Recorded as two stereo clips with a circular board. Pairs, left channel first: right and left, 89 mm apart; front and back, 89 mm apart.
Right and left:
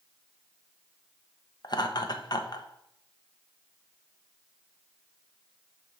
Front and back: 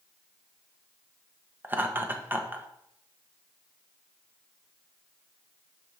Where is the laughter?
115° right, 1.2 m.